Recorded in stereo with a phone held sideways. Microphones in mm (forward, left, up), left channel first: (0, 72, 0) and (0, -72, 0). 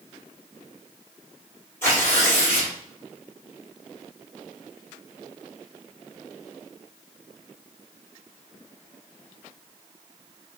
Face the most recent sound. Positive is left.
turn(degrees=15)  # may be behind; listen again after turning